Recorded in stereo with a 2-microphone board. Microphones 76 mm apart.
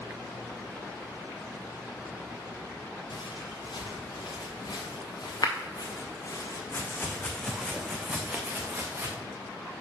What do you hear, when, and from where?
3.1 s footsteps: 80° left, 2.5 m; by 9.2 s 35° right (ahead or behind), 1.5 m